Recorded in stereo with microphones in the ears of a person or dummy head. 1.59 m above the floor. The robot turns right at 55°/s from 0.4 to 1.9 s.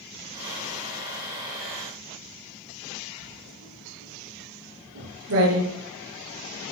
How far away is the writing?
About 5 m.